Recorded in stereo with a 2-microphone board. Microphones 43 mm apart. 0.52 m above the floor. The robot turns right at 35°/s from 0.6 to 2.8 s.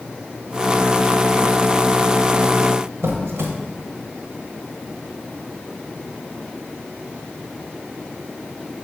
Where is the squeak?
80° right, 1.0 m.